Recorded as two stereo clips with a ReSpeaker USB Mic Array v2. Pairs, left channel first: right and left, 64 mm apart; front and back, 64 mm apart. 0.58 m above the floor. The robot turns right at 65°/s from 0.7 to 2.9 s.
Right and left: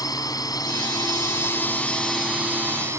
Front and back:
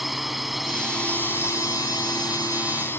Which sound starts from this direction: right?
A drone, at 0.0 s.